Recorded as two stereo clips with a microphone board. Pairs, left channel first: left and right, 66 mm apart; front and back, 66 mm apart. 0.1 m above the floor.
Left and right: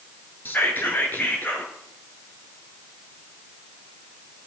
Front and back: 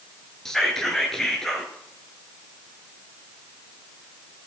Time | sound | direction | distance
0.5 | whispering | 80° left | 1.2 m